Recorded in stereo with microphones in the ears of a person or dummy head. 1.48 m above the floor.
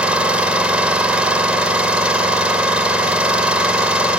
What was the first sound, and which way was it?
An engine running, 10° right (ahead or behind).